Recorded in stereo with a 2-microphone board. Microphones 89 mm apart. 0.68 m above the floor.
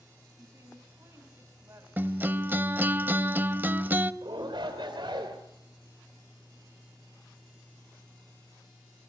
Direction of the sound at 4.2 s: 75° right (ahead or behind).